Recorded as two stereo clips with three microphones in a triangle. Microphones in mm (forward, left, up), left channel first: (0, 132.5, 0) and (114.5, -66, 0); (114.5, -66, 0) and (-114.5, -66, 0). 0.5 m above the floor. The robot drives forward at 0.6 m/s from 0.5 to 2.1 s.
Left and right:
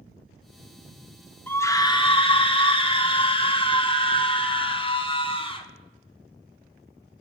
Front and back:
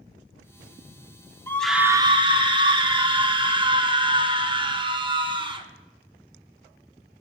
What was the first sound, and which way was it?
A scream, 55° left.